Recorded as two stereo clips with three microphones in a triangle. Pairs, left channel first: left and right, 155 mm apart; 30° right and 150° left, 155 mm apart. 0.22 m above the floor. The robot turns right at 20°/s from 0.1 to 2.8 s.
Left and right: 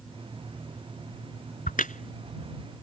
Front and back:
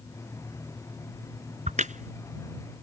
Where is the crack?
115° left; by 2.9 s 135° left.